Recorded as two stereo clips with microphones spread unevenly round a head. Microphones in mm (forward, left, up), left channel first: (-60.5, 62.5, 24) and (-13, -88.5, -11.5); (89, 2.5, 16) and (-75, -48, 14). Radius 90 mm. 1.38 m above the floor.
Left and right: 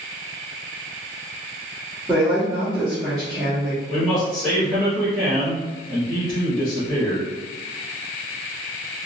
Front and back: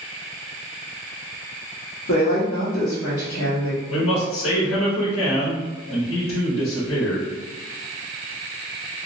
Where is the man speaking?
20° left, 1.5 m.